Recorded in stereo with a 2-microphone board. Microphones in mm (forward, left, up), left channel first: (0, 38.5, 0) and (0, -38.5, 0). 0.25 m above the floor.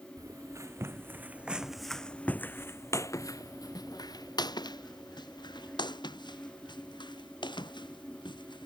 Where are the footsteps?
50° right (ahead or behind); by 8.7 s 80° left.